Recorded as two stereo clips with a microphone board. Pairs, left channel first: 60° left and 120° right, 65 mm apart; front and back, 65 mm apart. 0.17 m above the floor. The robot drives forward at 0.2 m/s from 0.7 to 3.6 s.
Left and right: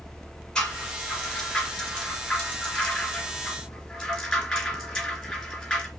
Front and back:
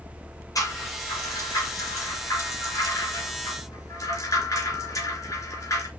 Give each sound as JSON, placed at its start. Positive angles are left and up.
{"t": 0.6, "sound": "a rattle", "azimuth_deg": -20, "distance_m": 3.5}